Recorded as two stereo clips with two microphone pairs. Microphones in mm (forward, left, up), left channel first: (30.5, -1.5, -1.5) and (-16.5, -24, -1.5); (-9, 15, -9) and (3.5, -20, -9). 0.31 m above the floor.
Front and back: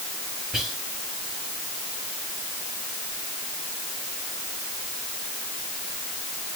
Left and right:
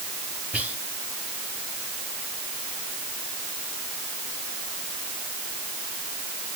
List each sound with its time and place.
0.5 s whispering: 75° right, 1.7 m